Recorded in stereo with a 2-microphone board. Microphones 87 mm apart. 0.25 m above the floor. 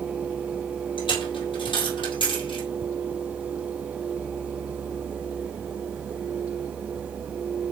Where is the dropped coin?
65° left (ahead or behind), 3.5 m.